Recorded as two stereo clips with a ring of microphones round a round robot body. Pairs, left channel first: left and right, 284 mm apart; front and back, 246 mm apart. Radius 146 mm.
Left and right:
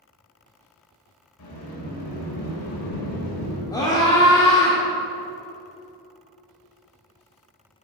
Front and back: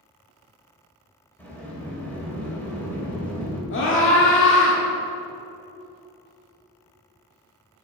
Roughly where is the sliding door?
Left.